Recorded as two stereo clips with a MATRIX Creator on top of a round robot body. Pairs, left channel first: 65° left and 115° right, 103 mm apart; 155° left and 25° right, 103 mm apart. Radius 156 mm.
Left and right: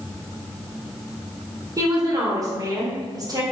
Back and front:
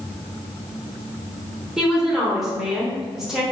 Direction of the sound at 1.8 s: 105° right.